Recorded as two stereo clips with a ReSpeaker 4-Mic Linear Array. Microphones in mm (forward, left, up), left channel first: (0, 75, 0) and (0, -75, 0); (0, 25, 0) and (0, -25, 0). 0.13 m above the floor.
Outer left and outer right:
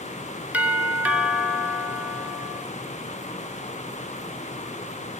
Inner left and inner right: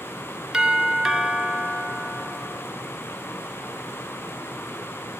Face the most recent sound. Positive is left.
turn(degrees=-10)  # may be behind; listen again after turning